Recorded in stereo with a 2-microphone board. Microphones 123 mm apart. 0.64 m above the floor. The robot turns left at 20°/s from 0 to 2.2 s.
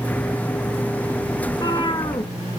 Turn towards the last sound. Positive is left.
turn(degrees=40)  # may be behind; listen again after turning